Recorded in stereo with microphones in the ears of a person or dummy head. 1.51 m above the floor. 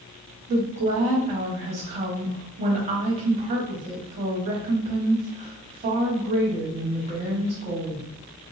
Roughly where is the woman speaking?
Right.